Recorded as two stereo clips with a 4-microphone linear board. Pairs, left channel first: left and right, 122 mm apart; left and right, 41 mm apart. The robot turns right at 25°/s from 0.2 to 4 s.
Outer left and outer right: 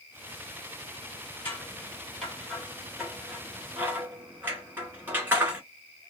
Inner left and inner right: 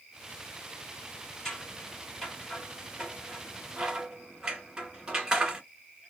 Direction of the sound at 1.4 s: 15° left (ahead or behind).